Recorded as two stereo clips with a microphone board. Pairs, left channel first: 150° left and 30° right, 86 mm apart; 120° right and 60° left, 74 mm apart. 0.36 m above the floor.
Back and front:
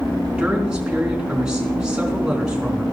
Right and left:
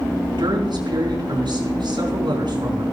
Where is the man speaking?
50° left, 4.5 m.